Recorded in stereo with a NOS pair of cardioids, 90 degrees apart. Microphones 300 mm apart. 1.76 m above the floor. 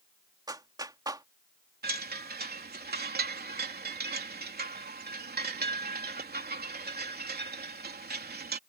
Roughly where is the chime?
Ahead right.